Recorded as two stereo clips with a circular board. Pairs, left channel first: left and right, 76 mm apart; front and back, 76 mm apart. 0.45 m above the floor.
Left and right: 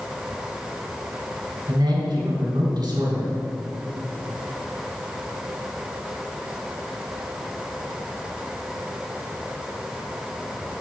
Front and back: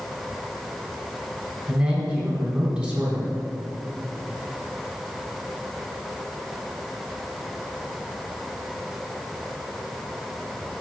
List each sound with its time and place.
1.7 s a man speaking: 110° right, 3.5 m